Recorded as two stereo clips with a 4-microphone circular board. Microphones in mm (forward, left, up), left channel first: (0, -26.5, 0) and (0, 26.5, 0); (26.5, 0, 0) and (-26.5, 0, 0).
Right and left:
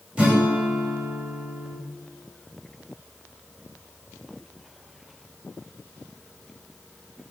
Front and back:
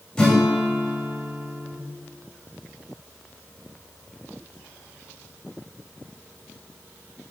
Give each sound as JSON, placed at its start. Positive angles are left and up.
{"t": 0.2, "sound": "a guitar", "azimuth_deg": 65, "distance_m": 1.1}